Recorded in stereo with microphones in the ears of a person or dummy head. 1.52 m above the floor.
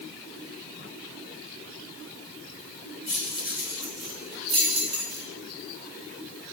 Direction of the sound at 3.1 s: 5° left (ahead or behind).